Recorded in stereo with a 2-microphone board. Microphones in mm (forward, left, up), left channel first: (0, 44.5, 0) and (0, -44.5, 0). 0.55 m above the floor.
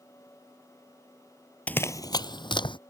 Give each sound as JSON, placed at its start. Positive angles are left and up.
{"t": 1.7, "sound": "running footsteps", "side_deg": 15}